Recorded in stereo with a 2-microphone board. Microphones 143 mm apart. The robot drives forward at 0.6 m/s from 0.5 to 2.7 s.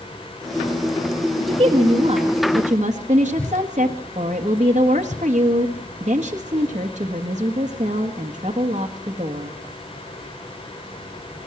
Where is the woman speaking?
40° right (ahead or behind), 2 m; by 9.5 s 55° right (ahead or behind), 1.6 m.